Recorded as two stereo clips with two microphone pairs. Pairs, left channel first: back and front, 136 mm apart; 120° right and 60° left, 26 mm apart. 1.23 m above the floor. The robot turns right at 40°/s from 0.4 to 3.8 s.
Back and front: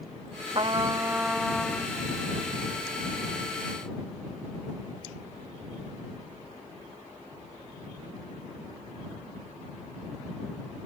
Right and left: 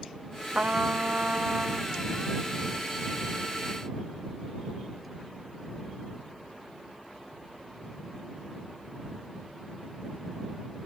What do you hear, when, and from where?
0.6 s a trumpet: 50° left; by 1.9 s 105° left